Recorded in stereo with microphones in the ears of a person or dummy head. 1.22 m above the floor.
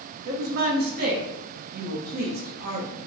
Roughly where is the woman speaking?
Right.